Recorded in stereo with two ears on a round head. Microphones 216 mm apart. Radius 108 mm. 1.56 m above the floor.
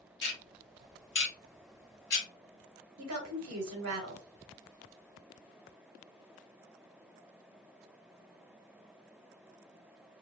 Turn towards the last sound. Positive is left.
turn(degrees=-65)  # may be behind; listen again after turning